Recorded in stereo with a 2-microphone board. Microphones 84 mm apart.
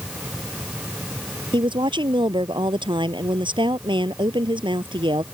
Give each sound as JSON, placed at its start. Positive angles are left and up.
{"t": 1.5, "sound": "a woman speaking", "side_deg": -85}